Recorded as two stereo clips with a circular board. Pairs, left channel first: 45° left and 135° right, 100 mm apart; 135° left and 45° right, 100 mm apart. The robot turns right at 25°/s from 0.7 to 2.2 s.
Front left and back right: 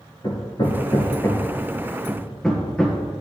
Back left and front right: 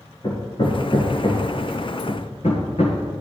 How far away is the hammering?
About 2 m.